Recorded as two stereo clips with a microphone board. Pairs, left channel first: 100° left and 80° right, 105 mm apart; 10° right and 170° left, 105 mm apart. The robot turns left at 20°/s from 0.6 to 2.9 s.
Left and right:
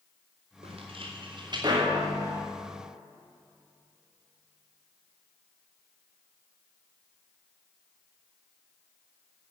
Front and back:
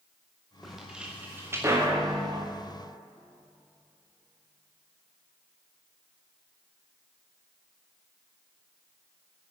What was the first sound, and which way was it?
Footsteps, 100° right.